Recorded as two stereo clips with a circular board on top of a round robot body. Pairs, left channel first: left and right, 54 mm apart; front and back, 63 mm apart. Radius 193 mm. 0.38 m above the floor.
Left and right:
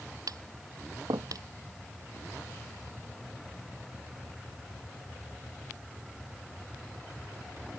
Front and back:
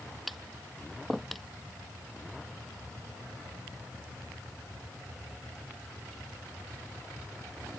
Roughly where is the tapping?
Right.